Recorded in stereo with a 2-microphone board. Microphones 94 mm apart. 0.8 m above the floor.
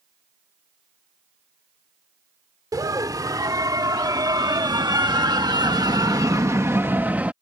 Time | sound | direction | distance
2.7 | a scream | 40° right (ahead or behind) | ?